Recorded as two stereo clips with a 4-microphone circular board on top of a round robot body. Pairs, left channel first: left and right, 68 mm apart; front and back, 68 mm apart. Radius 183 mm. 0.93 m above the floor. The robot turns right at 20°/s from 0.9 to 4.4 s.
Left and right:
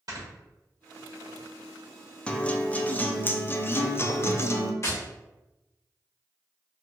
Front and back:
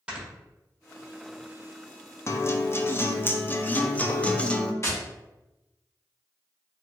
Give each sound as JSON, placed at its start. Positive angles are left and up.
{"t": 0.1, "sound": "snoring", "azimuth_deg": -105, "distance_m": 1.4}
{"t": 2.3, "sound": "a guitar", "azimuth_deg": 20, "distance_m": 0.5}
{"t": 4.8, "sound": "tapping", "azimuth_deg": 45, "distance_m": 1.2}